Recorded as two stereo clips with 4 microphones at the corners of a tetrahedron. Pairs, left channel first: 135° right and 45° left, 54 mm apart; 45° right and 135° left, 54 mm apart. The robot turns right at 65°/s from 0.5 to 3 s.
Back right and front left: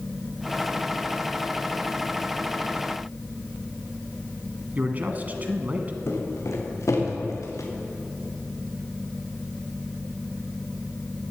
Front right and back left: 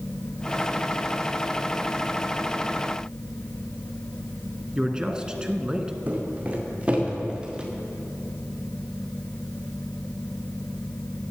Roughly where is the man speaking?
Left.